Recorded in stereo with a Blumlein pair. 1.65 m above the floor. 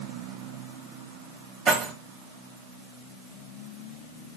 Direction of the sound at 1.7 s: 30° right.